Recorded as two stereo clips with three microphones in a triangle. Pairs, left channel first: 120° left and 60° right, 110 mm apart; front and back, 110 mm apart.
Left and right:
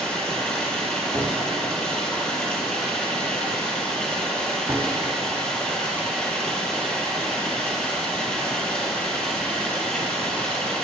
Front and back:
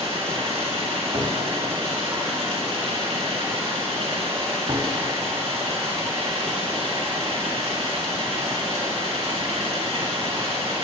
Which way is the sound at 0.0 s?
160° right.